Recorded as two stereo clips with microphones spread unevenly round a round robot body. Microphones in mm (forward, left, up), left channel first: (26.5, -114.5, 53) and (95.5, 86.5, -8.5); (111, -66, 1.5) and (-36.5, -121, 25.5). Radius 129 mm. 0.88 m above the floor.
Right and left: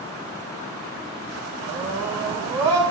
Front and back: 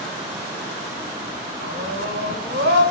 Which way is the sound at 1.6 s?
145° left.